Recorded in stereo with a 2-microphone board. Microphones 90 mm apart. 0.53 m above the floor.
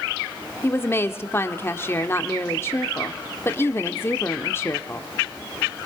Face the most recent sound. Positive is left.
turn(degrees=25)  # may be behind; listen again after turning